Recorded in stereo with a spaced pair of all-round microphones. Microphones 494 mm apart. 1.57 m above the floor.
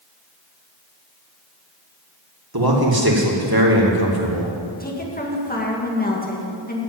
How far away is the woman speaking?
About 2.0 m.